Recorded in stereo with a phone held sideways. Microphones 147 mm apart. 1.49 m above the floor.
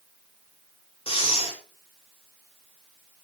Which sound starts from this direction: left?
Breathing, at 1.1 s.